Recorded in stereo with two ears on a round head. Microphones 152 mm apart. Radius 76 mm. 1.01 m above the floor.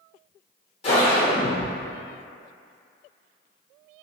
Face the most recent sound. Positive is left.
turn(degrees=35)  # may be behind; listen again after turning